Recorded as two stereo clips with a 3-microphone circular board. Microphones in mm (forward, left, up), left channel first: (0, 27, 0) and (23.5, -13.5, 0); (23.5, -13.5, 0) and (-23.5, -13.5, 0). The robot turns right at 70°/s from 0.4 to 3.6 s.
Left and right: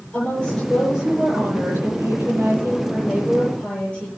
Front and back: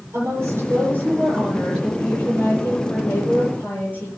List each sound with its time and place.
0.1 s a woman speaking: 175° right, 9.5 m; by 4.1 s 50° left, 9.5 m